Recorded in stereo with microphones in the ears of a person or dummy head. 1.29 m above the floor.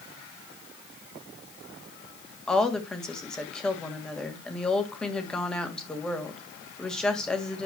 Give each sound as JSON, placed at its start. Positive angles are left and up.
{"t": 2.5, "sound": "a woman speaking", "side_deg": 0, "distance_m": 1.7}